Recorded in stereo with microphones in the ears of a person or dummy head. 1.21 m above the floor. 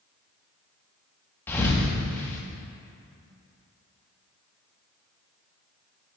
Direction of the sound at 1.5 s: 10° left (ahead or behind).